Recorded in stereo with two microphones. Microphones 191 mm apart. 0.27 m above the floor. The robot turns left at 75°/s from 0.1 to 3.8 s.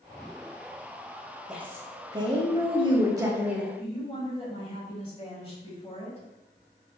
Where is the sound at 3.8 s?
30° left (ahead or behind), 1.4 m.